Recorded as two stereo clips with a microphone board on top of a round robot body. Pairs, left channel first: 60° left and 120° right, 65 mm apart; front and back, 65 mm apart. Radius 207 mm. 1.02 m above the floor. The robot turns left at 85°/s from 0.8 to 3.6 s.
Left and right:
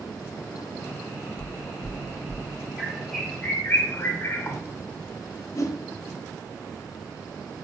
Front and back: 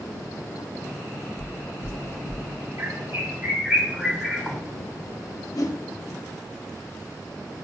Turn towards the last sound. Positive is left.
turn(degrees=25)